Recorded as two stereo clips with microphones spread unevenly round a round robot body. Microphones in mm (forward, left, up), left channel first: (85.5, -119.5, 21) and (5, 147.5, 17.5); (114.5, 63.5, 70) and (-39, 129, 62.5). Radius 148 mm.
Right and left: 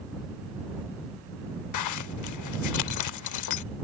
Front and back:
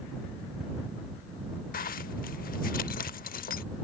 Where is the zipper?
60° right.